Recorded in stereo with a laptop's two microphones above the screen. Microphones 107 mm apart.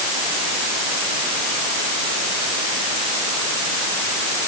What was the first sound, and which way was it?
Only background noise.